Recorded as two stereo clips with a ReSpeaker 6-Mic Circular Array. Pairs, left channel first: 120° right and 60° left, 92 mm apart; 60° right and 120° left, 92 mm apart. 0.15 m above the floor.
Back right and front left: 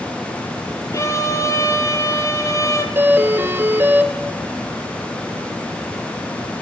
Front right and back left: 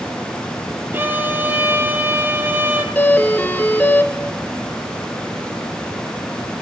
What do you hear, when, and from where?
0.9 s a violin: 175° right, 2 m
3.0 s a doorbell: 5° left, 2.0 m